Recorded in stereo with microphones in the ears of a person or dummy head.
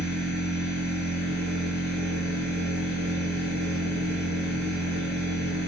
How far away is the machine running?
About 1.2 m.